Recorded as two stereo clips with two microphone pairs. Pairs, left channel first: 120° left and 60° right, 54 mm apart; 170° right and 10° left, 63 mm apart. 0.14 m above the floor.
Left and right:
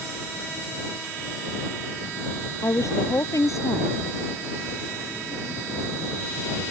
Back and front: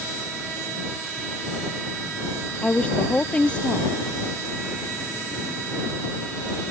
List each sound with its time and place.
2.6 s a woman speaking: 120° left